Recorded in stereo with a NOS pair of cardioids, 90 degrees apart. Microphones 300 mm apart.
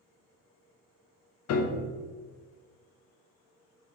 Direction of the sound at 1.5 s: 60° left.